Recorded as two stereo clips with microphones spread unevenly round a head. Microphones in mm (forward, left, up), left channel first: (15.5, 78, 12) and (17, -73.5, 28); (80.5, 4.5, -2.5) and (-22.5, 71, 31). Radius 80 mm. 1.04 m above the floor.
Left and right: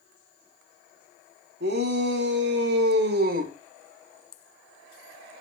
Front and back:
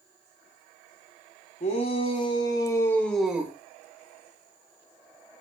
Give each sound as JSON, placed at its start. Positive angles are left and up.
{"t": 1.6, "sound": "a shout", "azimuth_deg": -75, "distance_m": 3.0}